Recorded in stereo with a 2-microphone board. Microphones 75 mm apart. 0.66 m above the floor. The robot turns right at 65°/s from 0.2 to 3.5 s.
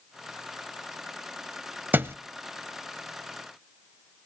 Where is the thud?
25° right (ahead or behind), 0.6 m; by 2.2 s 35° right (ahead or behind), 0.6 m.